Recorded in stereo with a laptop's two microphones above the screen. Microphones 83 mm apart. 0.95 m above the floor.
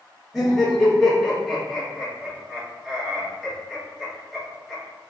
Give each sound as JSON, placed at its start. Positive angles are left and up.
{"t": 0.3, "sound": "laughter", "side_deg": 0, "distance_m": 1.7}